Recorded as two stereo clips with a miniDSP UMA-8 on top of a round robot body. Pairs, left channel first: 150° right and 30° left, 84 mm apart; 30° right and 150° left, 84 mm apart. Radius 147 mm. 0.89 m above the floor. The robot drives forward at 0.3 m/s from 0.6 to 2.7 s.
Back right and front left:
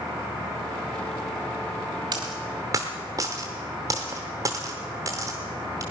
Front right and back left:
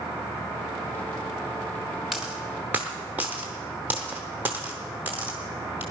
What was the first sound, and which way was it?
A dropped coin, 65° left.